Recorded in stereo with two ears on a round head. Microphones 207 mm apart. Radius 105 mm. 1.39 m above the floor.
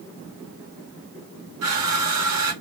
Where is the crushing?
75° right (ahead or behind), 1.9 m.